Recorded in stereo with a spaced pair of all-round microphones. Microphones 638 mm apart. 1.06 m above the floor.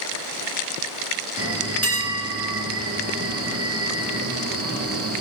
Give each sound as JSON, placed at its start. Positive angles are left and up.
{"t": 1.4, "sound": "a bell", "side_deg": -25, "distance_m": 0.5}